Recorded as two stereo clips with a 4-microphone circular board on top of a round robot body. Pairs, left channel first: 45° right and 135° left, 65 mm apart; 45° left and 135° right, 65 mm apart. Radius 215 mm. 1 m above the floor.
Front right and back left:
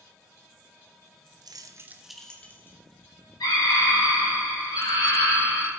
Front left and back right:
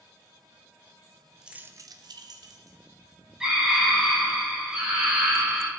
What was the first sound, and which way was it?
Keys jangling, 145° left.